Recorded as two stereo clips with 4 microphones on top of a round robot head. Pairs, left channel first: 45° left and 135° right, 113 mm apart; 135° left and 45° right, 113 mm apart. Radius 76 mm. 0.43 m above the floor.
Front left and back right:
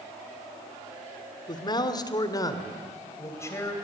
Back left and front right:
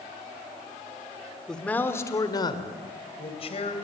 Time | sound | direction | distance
1.5 | a man speaking | 55° left | 1.6 m